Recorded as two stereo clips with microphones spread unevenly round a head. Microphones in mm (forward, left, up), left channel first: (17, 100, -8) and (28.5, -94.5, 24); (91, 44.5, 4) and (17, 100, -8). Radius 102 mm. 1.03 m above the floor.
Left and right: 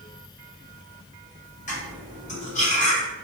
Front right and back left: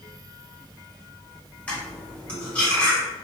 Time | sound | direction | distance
1.7 | cutlery clinking | 40° left | 1.6 m